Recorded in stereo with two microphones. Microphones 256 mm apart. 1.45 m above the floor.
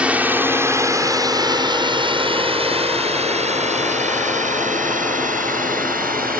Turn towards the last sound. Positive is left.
turn(degrees=-35)  # may be behind; listen again after turning